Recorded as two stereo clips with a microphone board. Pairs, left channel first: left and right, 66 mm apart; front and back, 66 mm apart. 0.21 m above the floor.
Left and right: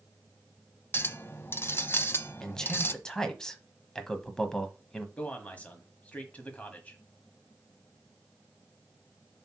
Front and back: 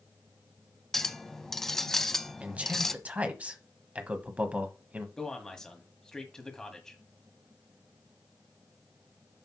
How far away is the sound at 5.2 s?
About 1.4 m.